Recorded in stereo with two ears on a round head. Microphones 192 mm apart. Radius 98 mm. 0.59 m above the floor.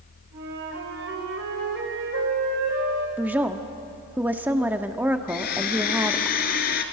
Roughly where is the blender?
Left.